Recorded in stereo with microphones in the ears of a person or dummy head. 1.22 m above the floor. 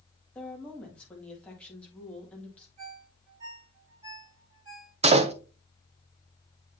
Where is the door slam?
30° right (ahead or behind), 0.6 m.